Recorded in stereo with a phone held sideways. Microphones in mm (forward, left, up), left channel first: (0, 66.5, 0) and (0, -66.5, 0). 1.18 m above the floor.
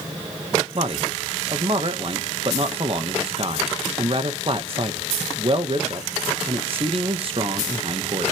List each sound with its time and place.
0.8 s a man speaking: 45° right (ahead or behind), 1.5 m